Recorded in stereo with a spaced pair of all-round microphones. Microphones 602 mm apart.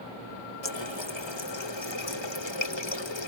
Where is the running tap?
45° left (ahead or behind).